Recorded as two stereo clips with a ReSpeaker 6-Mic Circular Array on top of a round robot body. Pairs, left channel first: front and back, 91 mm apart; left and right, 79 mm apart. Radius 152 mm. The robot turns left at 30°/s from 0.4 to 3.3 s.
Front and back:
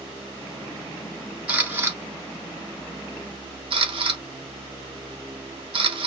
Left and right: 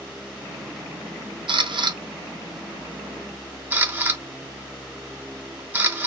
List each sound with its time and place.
1.5 s a camera shutter: 100° right, 0.9 m; by 6.1 s 155° right, 0.9 m